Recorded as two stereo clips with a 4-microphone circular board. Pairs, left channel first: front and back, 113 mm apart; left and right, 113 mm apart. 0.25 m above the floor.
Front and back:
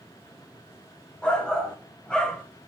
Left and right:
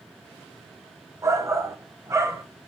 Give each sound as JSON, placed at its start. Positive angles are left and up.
{"t": 1.2, "sound": "a shout", "azimuth_deg": -70, "distance_m": 1.0}